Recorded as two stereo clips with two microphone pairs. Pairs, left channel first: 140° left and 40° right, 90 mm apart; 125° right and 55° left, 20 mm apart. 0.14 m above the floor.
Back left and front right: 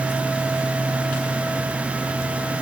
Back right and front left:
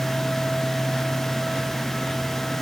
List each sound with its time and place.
Only background noise.